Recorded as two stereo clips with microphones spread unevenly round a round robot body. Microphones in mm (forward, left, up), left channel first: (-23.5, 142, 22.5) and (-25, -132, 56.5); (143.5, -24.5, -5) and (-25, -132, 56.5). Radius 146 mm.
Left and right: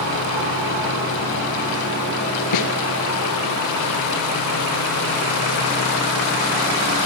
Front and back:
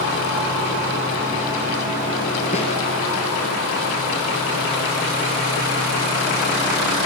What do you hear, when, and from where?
2.5 s a snare drum: 100° left, 4 m